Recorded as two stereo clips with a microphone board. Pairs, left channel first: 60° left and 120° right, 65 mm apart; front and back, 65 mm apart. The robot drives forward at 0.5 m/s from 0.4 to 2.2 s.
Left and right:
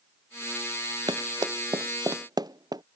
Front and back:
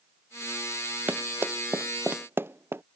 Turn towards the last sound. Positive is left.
turn(degrees=-125)